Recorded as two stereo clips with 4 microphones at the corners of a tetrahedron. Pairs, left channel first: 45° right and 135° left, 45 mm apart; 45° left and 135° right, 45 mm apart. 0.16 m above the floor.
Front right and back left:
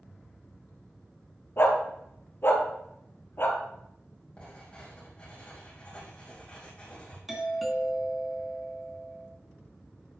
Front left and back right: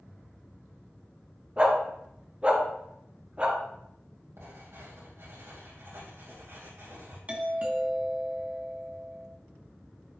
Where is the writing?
115° right, 4 m.